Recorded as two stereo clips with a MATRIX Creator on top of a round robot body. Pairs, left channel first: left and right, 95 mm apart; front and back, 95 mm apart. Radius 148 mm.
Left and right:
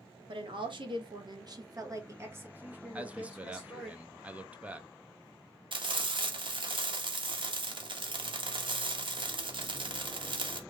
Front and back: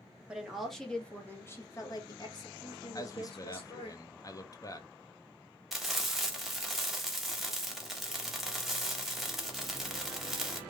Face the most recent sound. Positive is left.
turn(degrees=-95)